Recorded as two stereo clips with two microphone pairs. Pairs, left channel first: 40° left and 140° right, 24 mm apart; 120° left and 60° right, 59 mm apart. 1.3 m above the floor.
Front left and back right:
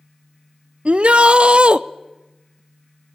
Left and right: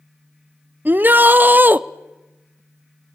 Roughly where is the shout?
Behind right.